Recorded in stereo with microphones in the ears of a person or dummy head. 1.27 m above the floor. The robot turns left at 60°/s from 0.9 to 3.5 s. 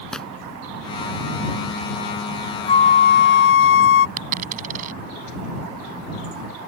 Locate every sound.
0.1 s tearing paper: 5° left (ahead or behind)
2.7 s a flute: 150° left; by 4.1 s 100° left
4.2 s a dropped coin: 45° right (ahead or behind)